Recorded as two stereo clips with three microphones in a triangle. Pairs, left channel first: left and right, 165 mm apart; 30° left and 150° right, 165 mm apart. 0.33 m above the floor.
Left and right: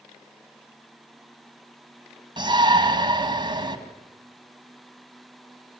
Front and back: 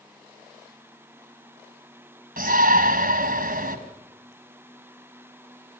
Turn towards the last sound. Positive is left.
turn(degrees=-150)